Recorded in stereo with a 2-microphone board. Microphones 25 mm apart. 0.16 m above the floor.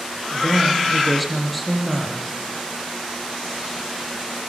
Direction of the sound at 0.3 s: 5° left (ahead or behind).